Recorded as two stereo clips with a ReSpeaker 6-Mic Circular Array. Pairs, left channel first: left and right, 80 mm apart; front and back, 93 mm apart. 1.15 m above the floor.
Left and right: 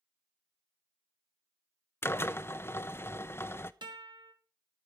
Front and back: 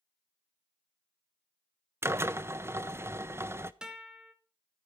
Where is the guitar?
100° right, 2 m.